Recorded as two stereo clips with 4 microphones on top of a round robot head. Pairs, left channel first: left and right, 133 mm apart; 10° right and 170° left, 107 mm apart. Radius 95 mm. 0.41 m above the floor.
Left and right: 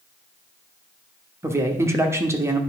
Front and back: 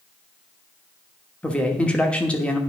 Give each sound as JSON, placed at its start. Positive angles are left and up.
{"t": 1.4, "sound": "a man speaking", "azimuth_deg": -70, "distance_m": 1.1}